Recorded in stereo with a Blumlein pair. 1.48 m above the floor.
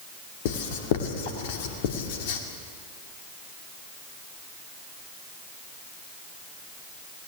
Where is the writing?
50° left, 2 m.